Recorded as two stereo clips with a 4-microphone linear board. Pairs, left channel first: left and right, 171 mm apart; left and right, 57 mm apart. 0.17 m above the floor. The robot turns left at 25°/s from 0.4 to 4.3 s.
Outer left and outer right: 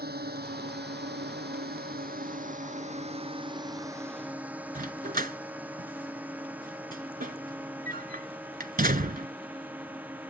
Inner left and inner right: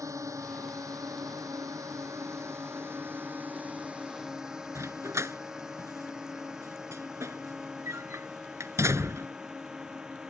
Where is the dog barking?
60° right (ahead or behind).